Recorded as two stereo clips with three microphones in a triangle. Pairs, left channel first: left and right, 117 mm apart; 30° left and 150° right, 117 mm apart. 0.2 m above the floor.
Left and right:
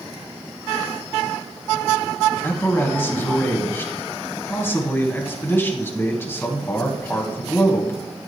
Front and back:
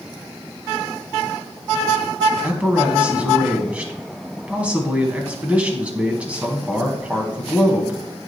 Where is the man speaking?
140° left, 1.6 m.